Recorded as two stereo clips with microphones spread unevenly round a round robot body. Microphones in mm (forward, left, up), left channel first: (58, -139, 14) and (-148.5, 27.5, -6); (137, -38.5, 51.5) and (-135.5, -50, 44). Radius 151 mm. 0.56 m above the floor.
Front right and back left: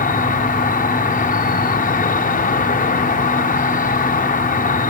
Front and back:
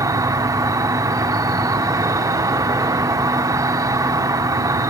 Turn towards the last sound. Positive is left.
turn(degrees=-100)